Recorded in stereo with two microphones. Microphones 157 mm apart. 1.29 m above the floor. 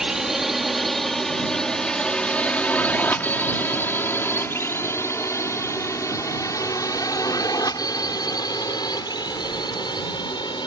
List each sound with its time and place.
0.0 s a drone: 5° right (ahead or behind); by 10.7 s 30° left (ahead or behind)